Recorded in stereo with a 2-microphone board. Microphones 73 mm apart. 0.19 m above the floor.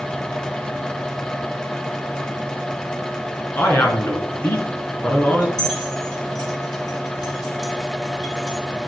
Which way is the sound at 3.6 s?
30° left (ahead or behind).